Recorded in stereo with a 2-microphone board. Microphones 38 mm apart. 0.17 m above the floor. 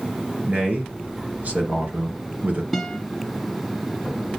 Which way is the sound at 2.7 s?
5° left (ahead or behind).